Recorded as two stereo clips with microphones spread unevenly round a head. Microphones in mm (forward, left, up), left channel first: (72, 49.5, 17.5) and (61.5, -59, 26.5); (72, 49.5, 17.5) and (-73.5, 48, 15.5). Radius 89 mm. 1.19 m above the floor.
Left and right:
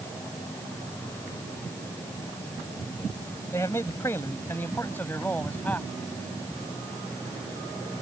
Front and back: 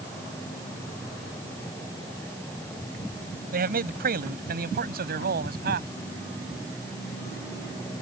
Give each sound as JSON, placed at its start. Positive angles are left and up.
{"t": 3.5, "sound": "a man speaking", "azimuth_deg": 160}